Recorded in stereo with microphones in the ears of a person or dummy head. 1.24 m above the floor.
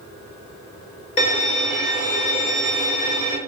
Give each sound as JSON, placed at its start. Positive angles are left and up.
{"t": 1.2, "sound": "a violin", "side_deg": 30, "distance_m": 0.9}